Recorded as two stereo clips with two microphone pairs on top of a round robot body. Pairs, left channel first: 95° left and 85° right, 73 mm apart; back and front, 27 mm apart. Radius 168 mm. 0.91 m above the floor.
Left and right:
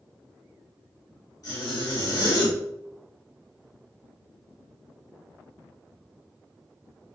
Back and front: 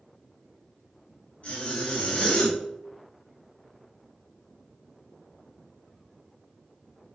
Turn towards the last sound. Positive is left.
turn(degrees=145)